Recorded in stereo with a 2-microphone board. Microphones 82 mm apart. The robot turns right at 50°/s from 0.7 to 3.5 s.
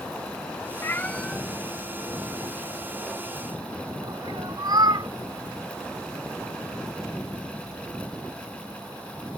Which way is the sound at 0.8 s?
30° left (ahead or behind).